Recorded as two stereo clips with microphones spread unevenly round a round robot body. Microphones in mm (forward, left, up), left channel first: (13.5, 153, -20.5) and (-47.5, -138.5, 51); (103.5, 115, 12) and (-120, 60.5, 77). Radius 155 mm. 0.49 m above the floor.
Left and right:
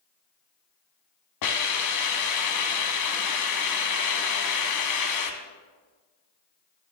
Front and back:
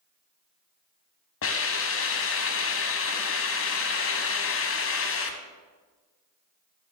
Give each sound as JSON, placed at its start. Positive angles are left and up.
{"t": 1.4, "sound": "a hiss", "azimuth_deg": 45, "distance_m": 1.1}